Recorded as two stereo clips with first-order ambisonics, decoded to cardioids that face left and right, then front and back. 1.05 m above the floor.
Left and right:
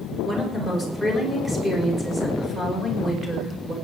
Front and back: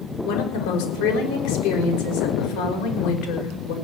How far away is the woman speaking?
About 4.5 m.